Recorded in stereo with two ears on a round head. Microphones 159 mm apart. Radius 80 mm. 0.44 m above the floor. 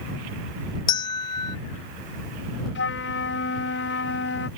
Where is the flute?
70° left (ahead or behind).